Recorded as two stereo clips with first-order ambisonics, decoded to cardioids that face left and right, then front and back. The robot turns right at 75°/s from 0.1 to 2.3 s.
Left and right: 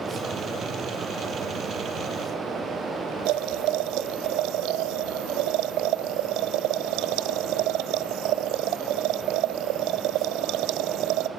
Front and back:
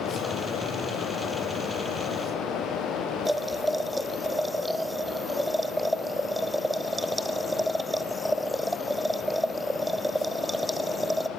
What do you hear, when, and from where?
3.2 s boiling: 95° right, 0.6 m